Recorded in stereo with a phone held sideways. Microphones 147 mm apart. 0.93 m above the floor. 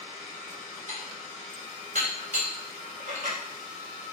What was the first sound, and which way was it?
Dishes clattering, 60° right (ahead or behind).